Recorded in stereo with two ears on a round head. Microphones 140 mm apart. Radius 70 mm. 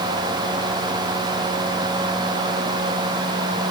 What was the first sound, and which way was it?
Only background noise.